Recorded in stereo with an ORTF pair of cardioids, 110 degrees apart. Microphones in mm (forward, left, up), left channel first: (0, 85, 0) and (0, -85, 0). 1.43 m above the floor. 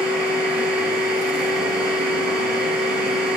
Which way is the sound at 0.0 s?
5° right.